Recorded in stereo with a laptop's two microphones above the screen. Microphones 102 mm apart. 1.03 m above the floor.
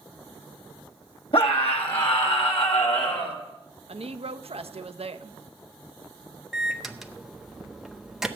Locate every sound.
1.3 s a scream: 65° left (ahead or behind), 2 m; by 3.4 s 80° left, 3 m
3.9 s a woman speaking: 75° right (ahead or behind), 0.7 m
6.5 s a microwave: 5° right (ahead or behind), 0.6 m